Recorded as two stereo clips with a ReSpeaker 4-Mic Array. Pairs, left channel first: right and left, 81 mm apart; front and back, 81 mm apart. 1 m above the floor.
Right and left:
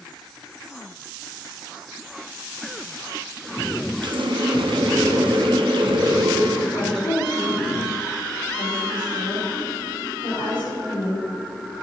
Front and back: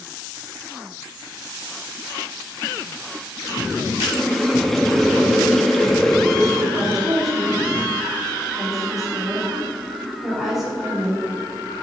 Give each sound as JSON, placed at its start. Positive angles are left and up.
{"t": 4.0, "sound": "a running tap", "azimuth_deg": 85, "distance_m": 0.7}
{"t": 6.7, "sound": "a woman speaking", "azimuth_deg": -90, "distance_m": 3.0}